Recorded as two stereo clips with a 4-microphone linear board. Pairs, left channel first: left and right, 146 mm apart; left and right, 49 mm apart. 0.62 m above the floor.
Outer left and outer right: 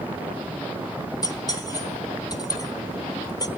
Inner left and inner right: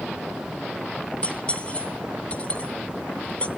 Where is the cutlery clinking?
25° left (ahead or behind), 1.0 m.